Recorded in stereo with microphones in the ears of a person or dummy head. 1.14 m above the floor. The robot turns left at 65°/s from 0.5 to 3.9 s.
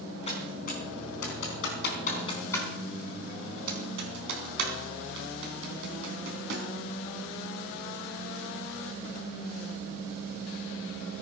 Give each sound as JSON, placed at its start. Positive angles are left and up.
{"t": 0.3, "sound": "typing on a keyboard", "side_deg": 30, "distance_m": 4.0}